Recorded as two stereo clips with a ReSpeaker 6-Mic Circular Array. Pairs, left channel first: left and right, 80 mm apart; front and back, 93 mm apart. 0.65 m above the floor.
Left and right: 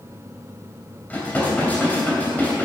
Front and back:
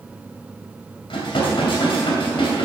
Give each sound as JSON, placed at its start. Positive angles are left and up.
{"t": 1.1, "sound": "dishes clattering", "azimuth_deg": 20, "distance_m": 2.5}